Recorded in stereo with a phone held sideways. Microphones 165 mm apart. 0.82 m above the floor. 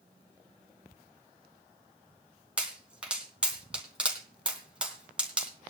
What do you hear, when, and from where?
2.6 s a pop: 5° right (ahead or behind), 3 m